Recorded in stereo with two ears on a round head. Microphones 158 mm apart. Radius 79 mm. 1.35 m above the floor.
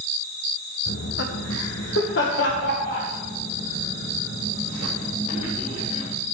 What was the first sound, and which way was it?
Laughter, 55° left (ahead or behind).